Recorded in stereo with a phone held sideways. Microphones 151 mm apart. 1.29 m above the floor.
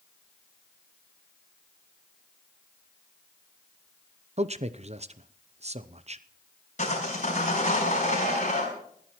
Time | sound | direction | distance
4.4 | a man speaking | 45° right (ahead or behind) | 0.7 m
6.8 | sawing | 50° left (ahead or behind) | 5.5 m